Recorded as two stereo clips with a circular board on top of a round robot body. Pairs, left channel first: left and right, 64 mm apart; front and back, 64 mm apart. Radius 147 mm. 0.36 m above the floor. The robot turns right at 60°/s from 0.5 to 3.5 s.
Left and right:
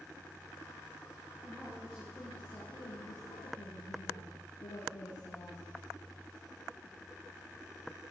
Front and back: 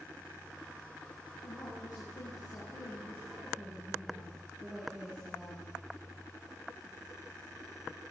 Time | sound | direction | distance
1.4 | a woman speaking | 35° right | 6.5 m